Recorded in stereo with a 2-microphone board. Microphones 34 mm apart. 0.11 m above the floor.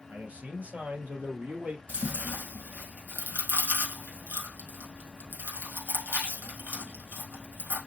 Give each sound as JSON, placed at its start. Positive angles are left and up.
{"t": 0.1, "sound": "a man speaking", "side_deg": -60, "distance_m": 2.0}
{"t": 1.9, "sound": "chewing", "side_deg": -70, "distance_m": 3.0}